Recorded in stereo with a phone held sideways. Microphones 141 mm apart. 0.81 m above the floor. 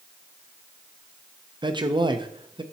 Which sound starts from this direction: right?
A man speaking, at 1.6 s.